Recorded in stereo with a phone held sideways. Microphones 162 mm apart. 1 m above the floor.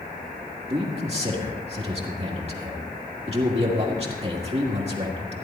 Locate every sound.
0.7 s a man speaking: 40° right (ahead or behind), 1.7 m